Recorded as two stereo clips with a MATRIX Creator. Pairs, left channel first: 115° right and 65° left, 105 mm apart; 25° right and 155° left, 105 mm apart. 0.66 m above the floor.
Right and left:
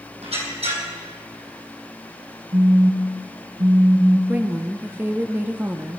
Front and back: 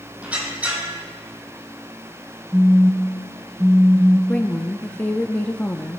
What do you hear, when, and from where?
0.2 s a squeak: 80° left, 2.5 m
2.5 s a phone buzzing: 90° left, 1.5 m
4.3 s a woman speaking: 30° left, 0.6 m